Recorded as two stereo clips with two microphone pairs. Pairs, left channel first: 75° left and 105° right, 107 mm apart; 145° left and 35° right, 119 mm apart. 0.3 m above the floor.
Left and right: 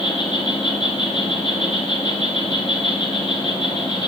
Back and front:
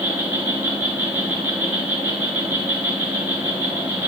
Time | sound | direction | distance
0.0 | an insect | 40° left | 1.4 m